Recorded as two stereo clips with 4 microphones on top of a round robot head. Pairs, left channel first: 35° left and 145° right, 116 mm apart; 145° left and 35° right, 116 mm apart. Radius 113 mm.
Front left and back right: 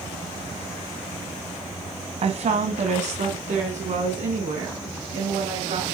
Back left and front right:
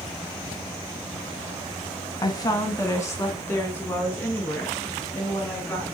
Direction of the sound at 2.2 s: 160° right.